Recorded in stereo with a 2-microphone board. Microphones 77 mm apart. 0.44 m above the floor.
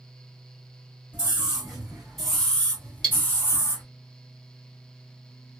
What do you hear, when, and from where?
1.1 s a scream: 15° right (ahead or behind), 1.5 m; by 3.8 s 40° left (ahead or behind), 1.3 m
3.0 s cutlery clinking: 10° left (ahead or behind), 1.0 m